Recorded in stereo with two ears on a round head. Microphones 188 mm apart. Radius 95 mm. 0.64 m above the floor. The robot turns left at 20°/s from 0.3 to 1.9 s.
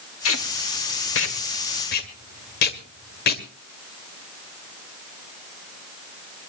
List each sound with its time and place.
0.2 s tape being pulled: 75° left (ahead or behind), 2 m; by 3.4 s 50° left (ahead or behind), 2 m